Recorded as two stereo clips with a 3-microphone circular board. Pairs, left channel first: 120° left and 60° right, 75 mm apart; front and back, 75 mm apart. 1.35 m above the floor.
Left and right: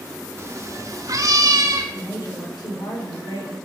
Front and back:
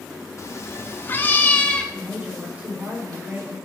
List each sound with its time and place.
0.4 s a cat meowing: 25° right, 1.1 m; by 1.8 s 75° right, 1.3 m
1.9 s a woman speaking: 110° left, 4.5 m